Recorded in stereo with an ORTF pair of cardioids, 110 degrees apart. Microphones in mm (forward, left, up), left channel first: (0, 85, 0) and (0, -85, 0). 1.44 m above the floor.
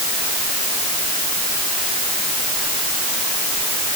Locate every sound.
Only background noise.